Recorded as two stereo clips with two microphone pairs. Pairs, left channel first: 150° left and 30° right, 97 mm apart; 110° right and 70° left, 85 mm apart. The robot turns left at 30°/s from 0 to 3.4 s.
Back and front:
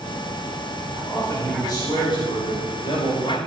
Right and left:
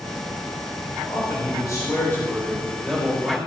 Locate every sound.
1.1 s a man speaking: 140° right, 4 m; by 3.4 s 150° left, 4 m